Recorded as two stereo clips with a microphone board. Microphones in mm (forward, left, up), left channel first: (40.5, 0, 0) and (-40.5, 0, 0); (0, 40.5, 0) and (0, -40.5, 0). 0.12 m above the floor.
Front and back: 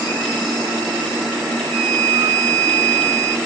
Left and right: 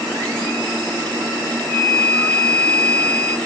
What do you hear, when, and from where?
1.7 s a flute: 165° right, 1.9 m